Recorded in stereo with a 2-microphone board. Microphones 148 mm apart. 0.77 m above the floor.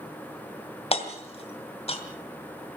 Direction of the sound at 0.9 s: 45° left (ahead or behind).